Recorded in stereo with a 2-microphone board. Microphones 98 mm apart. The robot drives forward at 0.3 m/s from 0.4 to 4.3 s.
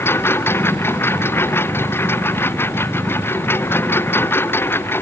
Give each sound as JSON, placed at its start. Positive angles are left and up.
{"t": 0.0, "sound": "a lawn mower", "side_deg": 25}